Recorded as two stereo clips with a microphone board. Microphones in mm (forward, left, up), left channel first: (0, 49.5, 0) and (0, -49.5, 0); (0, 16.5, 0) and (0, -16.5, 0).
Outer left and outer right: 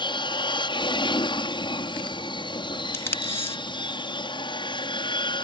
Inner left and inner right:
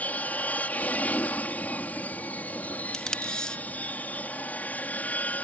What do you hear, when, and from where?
0.0 s an aircraft: 50° left (ahead or behind)
2.9 s tape being pulled: 25° left (ahead or behind)